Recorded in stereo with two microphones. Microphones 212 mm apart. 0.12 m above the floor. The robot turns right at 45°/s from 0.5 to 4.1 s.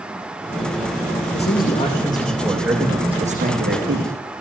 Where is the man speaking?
125° left, 8 m; by 4.1 s 110° right, 8 m.